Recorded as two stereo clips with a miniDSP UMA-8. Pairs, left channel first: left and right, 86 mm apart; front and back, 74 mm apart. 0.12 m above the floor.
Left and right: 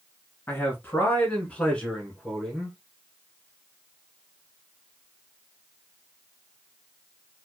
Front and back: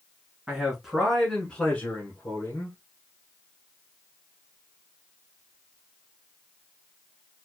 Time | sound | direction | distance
0.5 | a man speaking | 115° left | 1.2 m